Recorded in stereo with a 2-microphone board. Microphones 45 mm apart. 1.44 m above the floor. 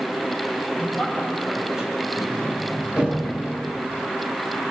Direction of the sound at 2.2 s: 25° right (ahead or behind).